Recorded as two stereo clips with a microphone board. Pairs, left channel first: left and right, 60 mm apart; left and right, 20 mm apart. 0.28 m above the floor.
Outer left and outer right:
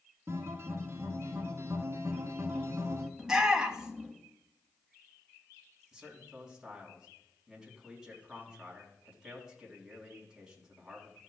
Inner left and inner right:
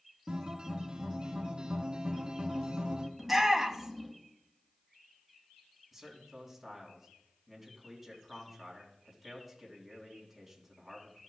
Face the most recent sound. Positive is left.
turn(degrees=-10)  # may be behind; listen again after turning